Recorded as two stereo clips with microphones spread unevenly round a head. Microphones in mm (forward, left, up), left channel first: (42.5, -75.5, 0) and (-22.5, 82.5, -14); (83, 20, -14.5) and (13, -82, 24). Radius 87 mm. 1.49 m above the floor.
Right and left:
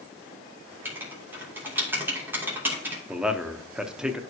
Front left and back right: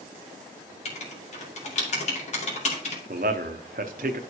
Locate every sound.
0.8 s writing: 35° left, 2.5 m
3.1 s a man speaking: 160° right, 0.7 m